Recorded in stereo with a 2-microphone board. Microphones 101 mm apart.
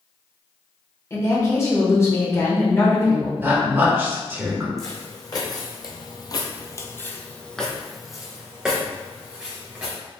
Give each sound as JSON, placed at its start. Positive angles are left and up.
{"t": 1.1, "sound": "a woman speaking", "side_deg": 30, "distance_m": 1.2}
{"t": 3.4, "sound": "a woman speaking", "side_deg": -20, "distance_m": 1.2}
{"t": 4.8, "sound": "footsteps", "side_deg": 35, "distance_m": 1.2}